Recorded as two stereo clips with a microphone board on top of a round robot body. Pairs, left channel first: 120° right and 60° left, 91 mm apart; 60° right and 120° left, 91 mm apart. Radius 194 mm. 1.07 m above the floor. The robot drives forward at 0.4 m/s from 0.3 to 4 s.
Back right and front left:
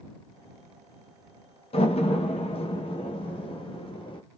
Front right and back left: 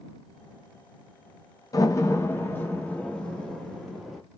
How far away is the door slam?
About 0.8 m.